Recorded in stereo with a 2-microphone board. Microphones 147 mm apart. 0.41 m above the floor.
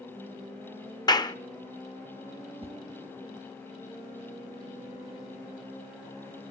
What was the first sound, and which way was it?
A clap, 30° left (ahead or behind).